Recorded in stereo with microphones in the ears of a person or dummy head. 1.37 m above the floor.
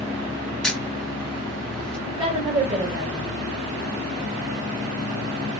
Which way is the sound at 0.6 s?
Centre (ahead or behind).